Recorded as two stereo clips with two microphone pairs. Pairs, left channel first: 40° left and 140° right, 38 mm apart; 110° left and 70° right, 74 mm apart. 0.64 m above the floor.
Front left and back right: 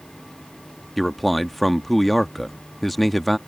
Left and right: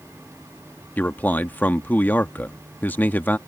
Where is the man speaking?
115° left.